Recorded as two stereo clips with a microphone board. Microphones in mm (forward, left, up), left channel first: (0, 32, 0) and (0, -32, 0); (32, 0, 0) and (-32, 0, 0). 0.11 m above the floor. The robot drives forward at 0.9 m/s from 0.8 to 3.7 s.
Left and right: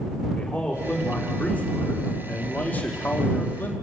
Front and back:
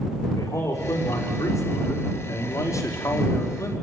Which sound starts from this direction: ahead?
A man speaking, at 0.4 s.